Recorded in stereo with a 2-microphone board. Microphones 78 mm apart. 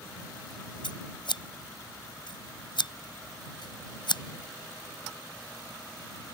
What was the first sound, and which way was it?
Scissors, 80° left.